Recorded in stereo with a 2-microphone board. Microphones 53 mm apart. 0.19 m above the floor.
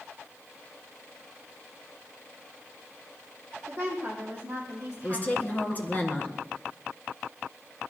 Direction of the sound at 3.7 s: 30° right (ahead or behind).